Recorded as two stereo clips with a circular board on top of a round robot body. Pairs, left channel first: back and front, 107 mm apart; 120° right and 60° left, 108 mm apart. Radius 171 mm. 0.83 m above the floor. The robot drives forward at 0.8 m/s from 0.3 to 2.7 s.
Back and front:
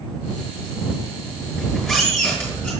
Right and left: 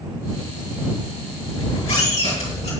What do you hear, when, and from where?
1.6 s a squeak: 90° right, 4 m; by 2.7 s 105° right, 4 m